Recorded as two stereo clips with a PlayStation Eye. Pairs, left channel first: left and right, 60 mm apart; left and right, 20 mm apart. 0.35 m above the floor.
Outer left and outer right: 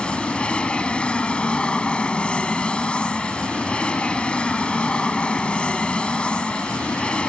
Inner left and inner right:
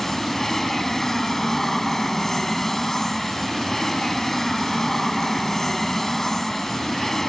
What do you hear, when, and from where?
0.0 s an aircraft: 15° left (ahead or behind)